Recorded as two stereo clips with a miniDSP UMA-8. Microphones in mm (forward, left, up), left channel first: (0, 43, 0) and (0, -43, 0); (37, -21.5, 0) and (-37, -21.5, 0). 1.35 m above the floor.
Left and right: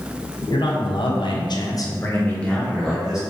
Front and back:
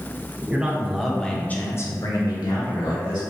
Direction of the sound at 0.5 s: 105° left.